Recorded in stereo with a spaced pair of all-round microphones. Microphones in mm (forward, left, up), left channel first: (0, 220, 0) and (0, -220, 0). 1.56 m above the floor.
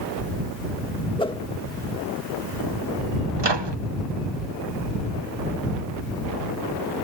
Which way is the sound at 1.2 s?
10° left (ahead or behind).